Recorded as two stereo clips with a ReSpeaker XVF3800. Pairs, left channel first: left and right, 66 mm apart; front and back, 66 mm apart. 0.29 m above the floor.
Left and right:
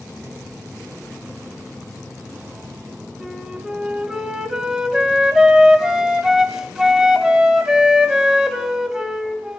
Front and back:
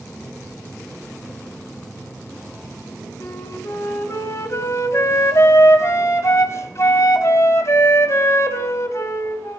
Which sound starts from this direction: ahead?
A flute, at 3.2 s.